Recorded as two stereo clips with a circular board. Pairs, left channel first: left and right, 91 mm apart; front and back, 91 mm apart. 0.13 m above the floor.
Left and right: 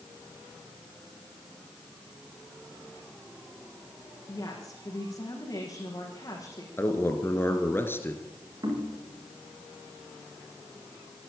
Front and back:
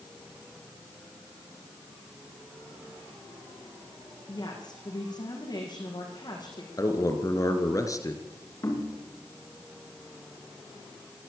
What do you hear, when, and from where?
4.3 s a woman speaking: 35° left, 6.5 m
6.8 s a man speaking: 35° left, 2.5 m
8.6 s knocking: 50° right, 9 m